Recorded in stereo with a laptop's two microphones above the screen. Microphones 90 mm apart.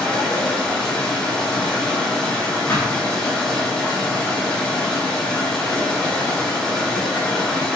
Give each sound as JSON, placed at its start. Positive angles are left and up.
{"t": 0.0, "sound": "running water", "side_deg": 10, "distance_m": 1.0}
{"t": 2.7, "sound": "a thud", "side_deg": 25, "distance_m": 1.5}